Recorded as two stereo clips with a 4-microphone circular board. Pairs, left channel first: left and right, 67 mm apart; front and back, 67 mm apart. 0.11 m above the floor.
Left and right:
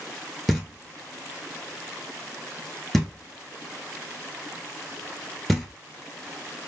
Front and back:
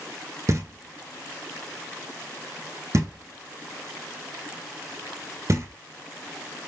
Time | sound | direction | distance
0.5 | knocking | 175° left | 1.0 m